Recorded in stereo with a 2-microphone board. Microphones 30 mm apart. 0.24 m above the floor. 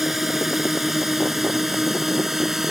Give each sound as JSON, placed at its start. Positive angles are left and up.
{"t": 0.0, "sound": "a drone", "side_deg": -10}